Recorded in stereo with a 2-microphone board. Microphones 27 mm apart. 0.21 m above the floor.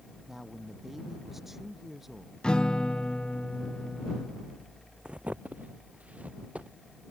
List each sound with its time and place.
0.3 s a man speaking: 10° right (ahead or behind)
2.4 s a guitar: 35° left (ahead or behind)
5.0 s footsteps: 40° right (ahead or behind); by 7.1 s 55° right (ahead or behind)